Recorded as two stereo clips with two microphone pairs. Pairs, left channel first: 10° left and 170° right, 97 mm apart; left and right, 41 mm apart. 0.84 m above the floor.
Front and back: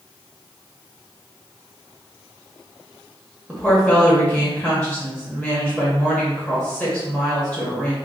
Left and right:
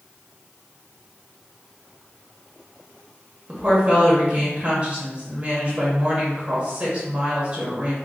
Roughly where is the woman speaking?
Ahead right.